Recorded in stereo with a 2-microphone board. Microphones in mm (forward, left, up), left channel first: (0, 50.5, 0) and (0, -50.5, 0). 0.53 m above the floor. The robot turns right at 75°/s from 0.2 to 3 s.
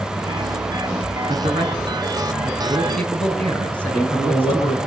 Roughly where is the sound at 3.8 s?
Left.